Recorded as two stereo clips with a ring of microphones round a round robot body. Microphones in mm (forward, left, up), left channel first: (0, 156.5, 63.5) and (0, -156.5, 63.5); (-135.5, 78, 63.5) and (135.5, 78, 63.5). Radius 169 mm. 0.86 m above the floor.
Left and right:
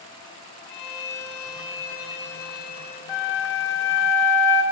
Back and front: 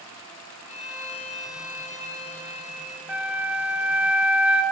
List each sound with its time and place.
0.7 s a violin: 115° left, 6 m
3.1 s a flute: 85° left, 1.5 m